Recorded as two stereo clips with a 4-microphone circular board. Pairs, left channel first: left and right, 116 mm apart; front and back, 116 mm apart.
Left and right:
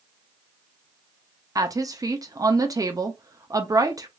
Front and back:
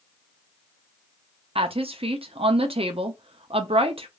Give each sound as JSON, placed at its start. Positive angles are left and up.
{"t": 1.6, "sound": "a woman speaking", "azimuth_deg": -150, "distance_m": 0.5}